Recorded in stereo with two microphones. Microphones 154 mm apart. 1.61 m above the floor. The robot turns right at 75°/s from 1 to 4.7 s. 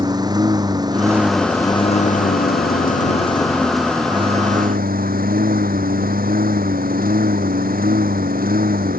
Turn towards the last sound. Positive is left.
turn(degrees=-110)